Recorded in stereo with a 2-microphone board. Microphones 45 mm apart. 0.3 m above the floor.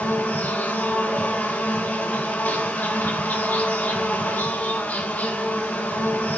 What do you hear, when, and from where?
0.0 s an insect: 40° left (ahead or behind), 1.6 m